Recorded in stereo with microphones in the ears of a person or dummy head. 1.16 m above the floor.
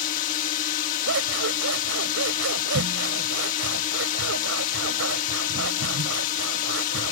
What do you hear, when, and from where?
0.0 s a drone: 40° left (ahead or behind)
1.1 s scissors: 75° right (ahead or behind)